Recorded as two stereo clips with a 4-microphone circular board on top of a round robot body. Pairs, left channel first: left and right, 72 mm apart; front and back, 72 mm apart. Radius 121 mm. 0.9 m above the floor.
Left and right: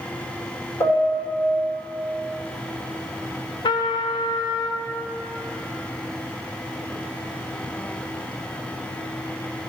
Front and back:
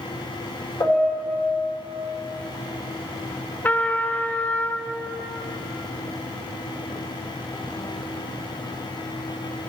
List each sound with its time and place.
0.8 s a piano: 55° left, 3 m
3.6 s a trumpet: 70° left, 0.5 m